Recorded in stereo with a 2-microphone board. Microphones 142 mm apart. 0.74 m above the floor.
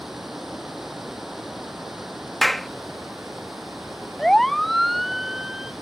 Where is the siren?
5° left (ahead or behind); by 5.7 s 5° right (ahead or behind).